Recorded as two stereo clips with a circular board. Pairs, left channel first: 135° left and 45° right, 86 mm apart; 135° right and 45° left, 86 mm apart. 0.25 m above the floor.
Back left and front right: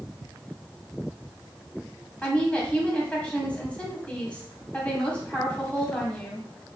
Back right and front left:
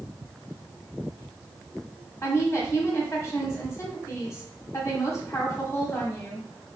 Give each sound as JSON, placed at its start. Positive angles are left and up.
{"t": 2.2, "sound": "a woman speaking", "azimuth_deg": -160, "distance_m": 1.5}